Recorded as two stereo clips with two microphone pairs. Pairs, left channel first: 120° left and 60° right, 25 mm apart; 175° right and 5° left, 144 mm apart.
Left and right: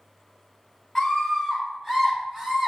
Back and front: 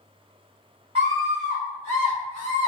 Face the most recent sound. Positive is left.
turn(degrees=-10)